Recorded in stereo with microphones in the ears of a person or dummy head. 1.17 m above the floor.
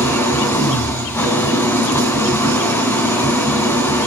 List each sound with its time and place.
0.0 s an engine running: 15° left (ahead or behind), 2.0 m